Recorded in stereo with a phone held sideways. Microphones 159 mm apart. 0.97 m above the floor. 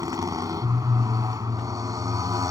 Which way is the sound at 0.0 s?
20° right (ahead or behind).